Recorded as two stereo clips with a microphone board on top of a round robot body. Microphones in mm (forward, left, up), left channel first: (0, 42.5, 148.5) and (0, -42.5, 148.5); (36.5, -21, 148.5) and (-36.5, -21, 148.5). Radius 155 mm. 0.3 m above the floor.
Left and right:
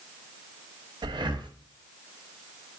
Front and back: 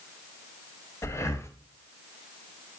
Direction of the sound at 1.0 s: 55° right.